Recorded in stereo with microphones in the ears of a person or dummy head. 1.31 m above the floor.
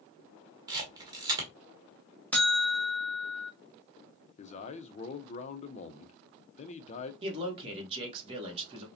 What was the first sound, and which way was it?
A camera shutter, 25° right (ahead or behind).